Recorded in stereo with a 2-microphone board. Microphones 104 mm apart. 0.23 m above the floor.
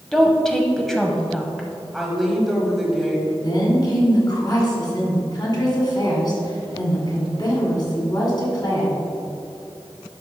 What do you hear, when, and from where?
0.1 s a woman speaking: 5° left (ahead or behind), 1.0 m
1.9 s a woman speaking: centre (ahead or behind), 1.5 m
3.4 s a woman speaking: 45° left (ahead or behind), 2 m